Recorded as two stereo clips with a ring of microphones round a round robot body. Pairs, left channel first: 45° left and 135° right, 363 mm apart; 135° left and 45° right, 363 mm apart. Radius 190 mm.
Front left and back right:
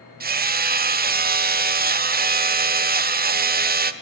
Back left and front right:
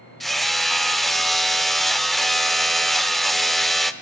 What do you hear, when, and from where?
0.2 s hammering: 135° right, 1.0 m